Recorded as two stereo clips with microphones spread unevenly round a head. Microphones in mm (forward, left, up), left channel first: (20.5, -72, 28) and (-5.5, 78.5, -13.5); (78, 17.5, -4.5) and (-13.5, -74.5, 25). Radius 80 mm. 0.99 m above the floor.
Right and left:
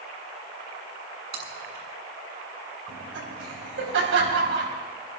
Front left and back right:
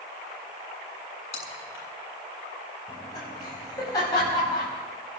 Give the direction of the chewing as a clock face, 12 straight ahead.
9 o'clock.